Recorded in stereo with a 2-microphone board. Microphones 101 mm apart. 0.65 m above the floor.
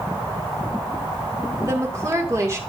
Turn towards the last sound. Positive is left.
turn(degrees=-30)  # may be behind; listen again after turning